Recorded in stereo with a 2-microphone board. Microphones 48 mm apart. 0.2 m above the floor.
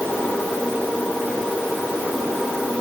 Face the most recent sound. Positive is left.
No sound to turn to.